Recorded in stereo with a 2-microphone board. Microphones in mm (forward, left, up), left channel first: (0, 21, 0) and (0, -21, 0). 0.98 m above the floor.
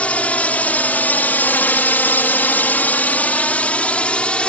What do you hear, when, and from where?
0.0 s a drone: 40° left (ahead or behind); by 4.5 s 30° left (ahead or behind)